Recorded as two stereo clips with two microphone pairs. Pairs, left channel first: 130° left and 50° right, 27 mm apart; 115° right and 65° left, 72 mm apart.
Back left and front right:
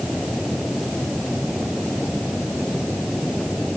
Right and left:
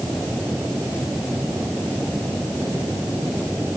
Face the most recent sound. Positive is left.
No sound to turn to.